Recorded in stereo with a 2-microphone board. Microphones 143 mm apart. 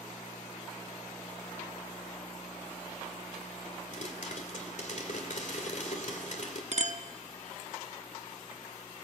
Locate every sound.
3.9 s a pop: 60° left (ahead or behind), 2.5 m
6.7 s a clink: 50° right (ahead or behind), 0.7 m